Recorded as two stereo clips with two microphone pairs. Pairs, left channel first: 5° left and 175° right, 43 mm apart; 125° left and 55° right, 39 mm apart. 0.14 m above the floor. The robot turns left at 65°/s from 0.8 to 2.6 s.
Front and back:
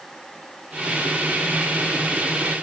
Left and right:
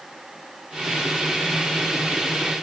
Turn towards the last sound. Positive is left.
No sound to turn to.